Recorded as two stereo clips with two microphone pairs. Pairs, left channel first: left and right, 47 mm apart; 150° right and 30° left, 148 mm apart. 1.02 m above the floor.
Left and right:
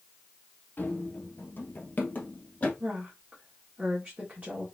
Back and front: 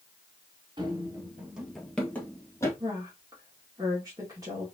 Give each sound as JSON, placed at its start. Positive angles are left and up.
{"t": 0.8, "sound": "running footsteps", "azimuth_deg": 70, "distance_m": 1.3}
{"t": 2.8, "sound": "a woman speaking", "azimuth_deg": -35, "distance_m": 2.0}